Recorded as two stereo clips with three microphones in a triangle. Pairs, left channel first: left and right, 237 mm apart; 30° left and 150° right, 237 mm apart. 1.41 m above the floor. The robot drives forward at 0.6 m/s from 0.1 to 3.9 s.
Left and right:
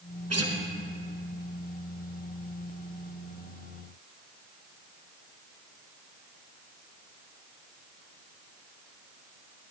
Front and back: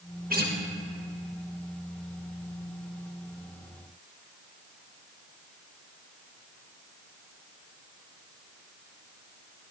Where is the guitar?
95° right, 1.5 m; by 0.6 s 100° right, 1.5 m.